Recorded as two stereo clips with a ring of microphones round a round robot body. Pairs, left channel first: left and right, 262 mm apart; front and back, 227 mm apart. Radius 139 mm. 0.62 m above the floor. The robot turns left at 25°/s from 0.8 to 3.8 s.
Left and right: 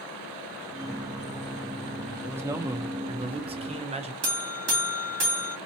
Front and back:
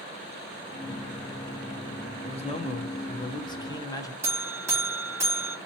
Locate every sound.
2.2 s a man speaking: 15° right, 0.8 m; by 4.1 s 55° right, 0.8 m
4.2 s a buzzer: 105° right, 1.7 m